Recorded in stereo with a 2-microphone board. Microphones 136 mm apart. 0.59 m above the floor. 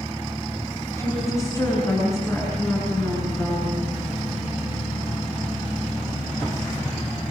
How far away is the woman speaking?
About 8 m.